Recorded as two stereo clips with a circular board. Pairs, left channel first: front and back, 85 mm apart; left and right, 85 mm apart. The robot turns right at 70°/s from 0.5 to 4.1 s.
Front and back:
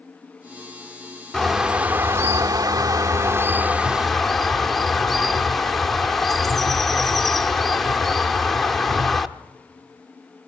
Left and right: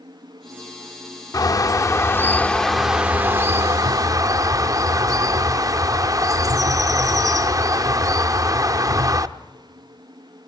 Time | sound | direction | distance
1.3 | a bird | 80° left | 0.6 m